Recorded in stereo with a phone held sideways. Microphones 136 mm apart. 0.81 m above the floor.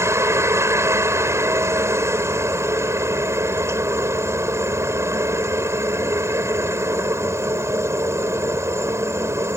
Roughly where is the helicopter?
Centre.